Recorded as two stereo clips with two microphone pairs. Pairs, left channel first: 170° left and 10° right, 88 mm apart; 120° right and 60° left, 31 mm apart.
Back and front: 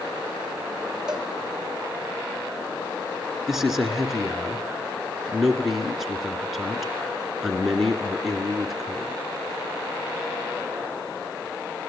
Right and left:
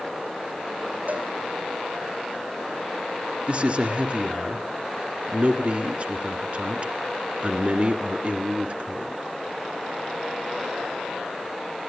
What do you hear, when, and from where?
1.1 s a cowbell: 65° left, 3 m
3.5 s a man speaking: 75° left, 1.7 m